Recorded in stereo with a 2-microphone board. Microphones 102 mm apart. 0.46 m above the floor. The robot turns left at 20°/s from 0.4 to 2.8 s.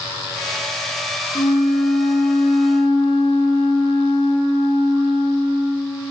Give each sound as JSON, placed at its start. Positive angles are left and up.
{"t": 1.4, "sound": "a flute", "side_deg": 85, "distance_m": 6.0}